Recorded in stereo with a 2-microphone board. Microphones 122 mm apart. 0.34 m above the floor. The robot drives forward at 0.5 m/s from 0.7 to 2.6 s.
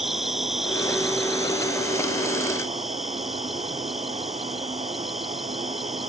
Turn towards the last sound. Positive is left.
turn(degrees=0)  # may be behind; listen again after turning